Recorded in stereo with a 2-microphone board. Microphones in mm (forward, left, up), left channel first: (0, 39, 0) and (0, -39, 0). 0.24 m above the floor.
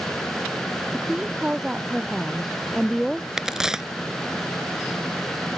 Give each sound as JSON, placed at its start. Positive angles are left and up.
{"t": 0.9, "sound": "a woman speaking", "side_deg": -15}
{"t": 3.4, "sound": "a crack", "side_deg": -5}